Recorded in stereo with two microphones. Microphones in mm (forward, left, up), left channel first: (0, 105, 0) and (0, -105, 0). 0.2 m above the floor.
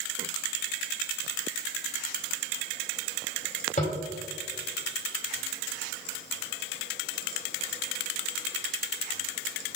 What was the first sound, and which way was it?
Tapping, 40° left (ahead or behind).